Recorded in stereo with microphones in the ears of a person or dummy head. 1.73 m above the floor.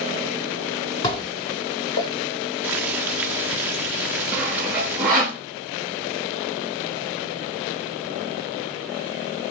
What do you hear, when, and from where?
1.0 s dishes clattering: 20° left (ahead or behind), 0.7 m
2.6 s boiling: 10° right (ahead or behind), 0.9 m
4.3 s sawing: 10° right (ahead or behind), 1.2 m